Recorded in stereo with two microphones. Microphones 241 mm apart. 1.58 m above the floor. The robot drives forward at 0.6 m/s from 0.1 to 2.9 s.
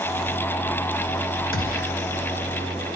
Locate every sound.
1.5 s a gunshot: 60° left (ahead or behind), 2.5 m; by 1.9 s 55° left (ahead or behind), 3 m